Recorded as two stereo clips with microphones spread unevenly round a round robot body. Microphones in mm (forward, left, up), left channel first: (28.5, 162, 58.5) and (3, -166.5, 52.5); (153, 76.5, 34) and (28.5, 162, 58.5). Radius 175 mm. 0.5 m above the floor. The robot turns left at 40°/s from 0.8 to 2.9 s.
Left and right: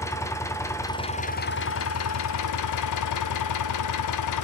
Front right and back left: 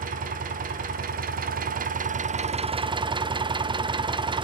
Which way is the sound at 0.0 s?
165° left.